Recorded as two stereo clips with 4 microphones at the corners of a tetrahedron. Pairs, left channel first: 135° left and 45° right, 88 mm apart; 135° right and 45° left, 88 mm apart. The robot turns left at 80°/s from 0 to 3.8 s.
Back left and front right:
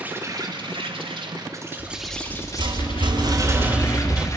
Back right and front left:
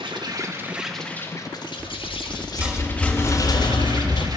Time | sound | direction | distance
0.0 | an insect | 30° left | 2.5 m
1.8 | a rattle | 40° left | 3 m